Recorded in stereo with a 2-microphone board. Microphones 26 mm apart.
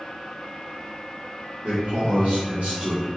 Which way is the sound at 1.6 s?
65° right (ahead or behind).